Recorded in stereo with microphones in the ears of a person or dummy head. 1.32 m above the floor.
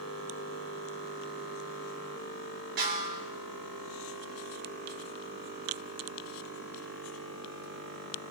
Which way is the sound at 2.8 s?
50° right (ahead or behind).